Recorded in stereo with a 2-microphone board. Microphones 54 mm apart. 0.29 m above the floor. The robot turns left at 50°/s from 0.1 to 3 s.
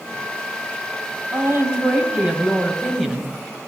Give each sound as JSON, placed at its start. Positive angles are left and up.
{"t": 1.3, "sound": "a woman speaking", "azimuth_deg": -95, "distance_m": 1.7}